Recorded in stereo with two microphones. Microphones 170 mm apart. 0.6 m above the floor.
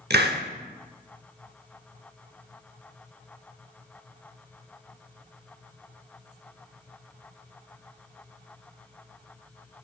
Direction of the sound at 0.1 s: 65° right (ahead or behind).